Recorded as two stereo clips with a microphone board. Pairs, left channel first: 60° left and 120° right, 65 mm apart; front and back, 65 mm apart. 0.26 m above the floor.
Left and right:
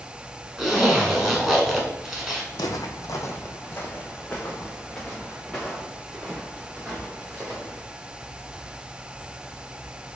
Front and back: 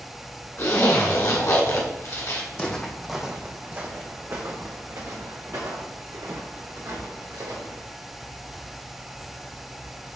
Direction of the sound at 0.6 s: 30° right.